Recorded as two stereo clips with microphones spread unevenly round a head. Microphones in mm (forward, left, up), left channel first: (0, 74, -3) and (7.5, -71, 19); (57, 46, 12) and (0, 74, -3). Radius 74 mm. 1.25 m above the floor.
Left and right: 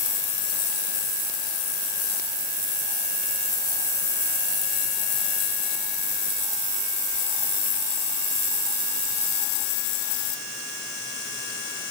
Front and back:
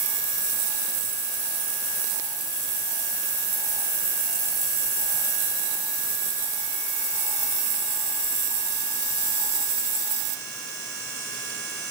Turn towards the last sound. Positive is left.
No sound to turn to.